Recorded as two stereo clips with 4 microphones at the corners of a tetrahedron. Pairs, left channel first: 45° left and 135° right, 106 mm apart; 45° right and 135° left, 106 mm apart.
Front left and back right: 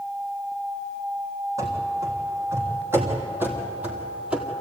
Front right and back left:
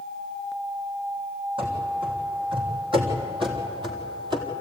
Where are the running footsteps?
165° left, 4 m; by 4.5 s 145° left, 2 m.